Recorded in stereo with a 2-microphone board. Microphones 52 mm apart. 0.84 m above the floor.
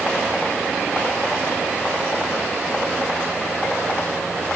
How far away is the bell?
I don't hear a bell.